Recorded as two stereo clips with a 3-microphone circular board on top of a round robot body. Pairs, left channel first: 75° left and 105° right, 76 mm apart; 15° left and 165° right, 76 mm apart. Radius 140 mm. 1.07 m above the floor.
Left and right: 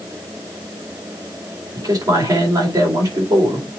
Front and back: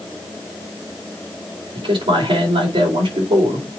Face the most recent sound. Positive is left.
turn(degrees=-145)